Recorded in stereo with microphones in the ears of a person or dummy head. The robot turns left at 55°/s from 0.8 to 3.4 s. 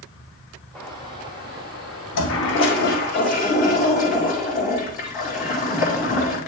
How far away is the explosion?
About 1.4 m.